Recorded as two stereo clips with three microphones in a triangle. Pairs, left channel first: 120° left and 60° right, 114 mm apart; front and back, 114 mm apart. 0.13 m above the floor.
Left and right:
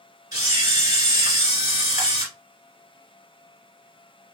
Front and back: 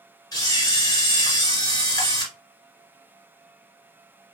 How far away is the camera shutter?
About 2 m.